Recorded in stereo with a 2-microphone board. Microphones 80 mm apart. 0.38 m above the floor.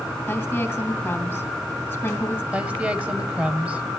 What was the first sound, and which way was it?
A woman speaking, 25° left (ahead or behind).